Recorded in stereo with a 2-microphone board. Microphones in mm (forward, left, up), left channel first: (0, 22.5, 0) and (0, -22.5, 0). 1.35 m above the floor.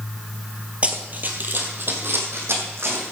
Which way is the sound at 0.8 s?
30° right (ahead or behind).